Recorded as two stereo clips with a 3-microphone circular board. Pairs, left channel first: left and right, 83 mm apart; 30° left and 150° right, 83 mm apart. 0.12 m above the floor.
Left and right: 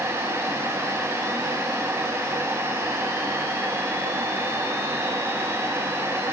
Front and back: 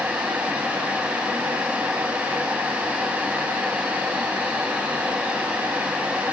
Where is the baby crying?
I don't hear a baby crying.